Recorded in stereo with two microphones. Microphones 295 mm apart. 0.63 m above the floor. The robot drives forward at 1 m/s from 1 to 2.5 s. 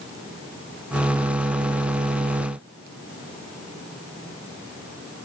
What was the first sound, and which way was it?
Only background noise.